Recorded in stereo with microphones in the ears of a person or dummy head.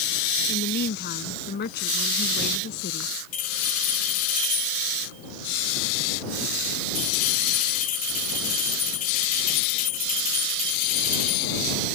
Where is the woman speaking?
55° left (ahead or behind).